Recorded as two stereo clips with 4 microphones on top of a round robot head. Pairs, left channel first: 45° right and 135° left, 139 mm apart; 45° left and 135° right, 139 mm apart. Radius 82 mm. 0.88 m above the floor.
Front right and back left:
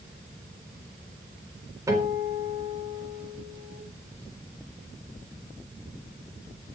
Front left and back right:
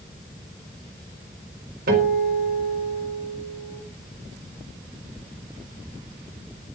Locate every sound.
1.9 s a guitar: 155° right, 5 m